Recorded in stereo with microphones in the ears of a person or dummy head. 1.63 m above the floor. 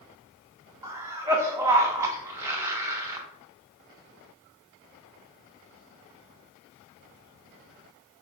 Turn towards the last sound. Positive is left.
turn(degrees=-15)  # may be behind; listen again after turning